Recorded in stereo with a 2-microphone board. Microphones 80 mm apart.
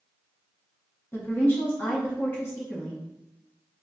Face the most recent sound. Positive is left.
turn(degrees=25)  # may be behind; listen again after turning